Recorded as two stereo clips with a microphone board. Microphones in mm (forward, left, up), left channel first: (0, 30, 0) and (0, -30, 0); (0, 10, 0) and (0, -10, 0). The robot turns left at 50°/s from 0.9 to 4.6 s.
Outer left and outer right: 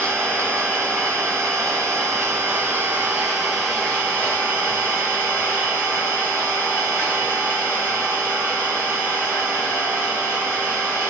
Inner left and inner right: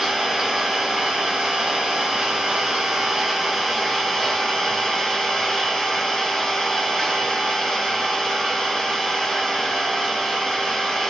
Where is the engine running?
45° right, 1.6 m; by 11.1 s 130° left, 1.6 m.